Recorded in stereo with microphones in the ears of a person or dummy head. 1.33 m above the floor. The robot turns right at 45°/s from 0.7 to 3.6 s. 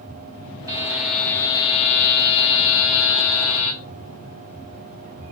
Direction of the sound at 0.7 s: 15° right.